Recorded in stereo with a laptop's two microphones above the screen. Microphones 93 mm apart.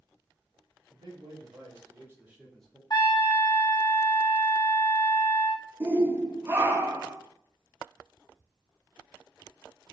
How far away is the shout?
About 0.8 m.